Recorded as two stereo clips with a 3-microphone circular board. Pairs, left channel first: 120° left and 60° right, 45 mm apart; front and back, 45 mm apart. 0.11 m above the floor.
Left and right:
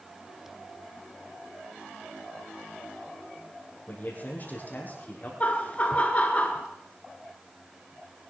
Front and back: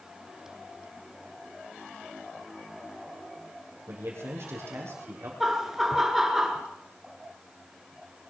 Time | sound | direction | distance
3.9 | a man speaking | 170° left | 4.5 m
5.4 | laughter | 105° left | 1.9 m